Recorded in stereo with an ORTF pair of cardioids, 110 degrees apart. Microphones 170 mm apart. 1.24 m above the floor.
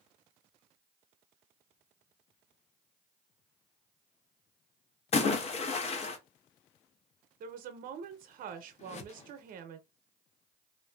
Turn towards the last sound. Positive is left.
turn(degrees=45)